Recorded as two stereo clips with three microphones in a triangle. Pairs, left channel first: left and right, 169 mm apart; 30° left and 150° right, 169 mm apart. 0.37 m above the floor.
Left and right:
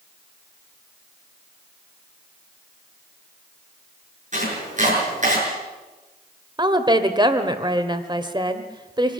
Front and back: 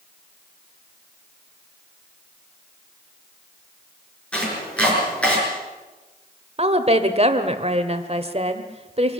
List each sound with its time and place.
4.3 s chopping: 55° right, 7 m
6.6 s a woman speaking: 135° right, 1.6 m